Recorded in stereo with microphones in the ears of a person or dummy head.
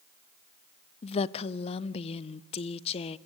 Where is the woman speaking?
35° left (ahead or behind), 0.6 m.